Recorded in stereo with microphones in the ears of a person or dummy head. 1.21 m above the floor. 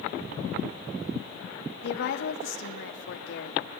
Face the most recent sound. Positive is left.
turn(degrees=65)  # may be behind; listen again after turning